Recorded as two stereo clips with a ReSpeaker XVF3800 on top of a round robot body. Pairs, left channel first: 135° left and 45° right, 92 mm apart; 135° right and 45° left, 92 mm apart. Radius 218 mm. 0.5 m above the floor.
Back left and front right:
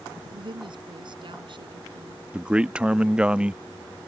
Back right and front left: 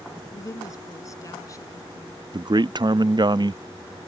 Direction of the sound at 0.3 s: 80° right.